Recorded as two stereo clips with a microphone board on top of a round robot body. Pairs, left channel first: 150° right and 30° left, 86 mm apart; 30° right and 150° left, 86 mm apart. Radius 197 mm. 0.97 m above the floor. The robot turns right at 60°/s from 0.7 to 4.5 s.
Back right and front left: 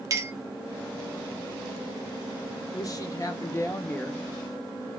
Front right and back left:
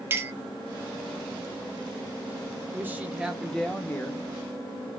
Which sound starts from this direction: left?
A clink, at 0.1 s.